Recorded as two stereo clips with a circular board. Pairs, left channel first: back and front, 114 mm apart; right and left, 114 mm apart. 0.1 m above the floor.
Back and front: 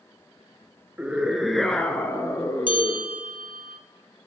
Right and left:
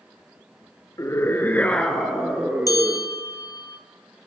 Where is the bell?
145° right, 1.0 m.